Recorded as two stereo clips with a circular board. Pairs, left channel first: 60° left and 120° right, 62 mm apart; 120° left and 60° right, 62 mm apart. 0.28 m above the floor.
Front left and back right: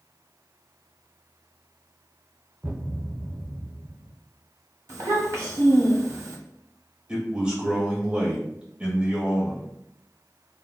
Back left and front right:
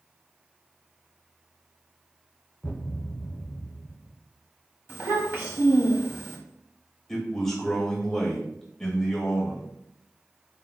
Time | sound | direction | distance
2.6 | a thud | straight behind | 0.6 m
4.9 | a child speaking | 105° right | 1.0 m
7.1 | a man speaking | 165° right | 1.1 m